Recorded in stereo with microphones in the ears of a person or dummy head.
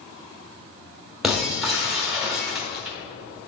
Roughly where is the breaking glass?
Centre.